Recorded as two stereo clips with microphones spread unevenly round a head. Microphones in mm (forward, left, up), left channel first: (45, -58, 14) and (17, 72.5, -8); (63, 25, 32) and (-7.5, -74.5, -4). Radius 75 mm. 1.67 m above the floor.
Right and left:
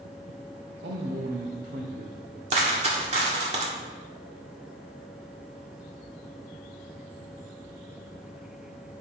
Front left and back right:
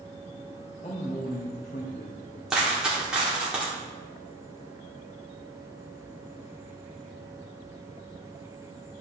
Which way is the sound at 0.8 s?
110° left.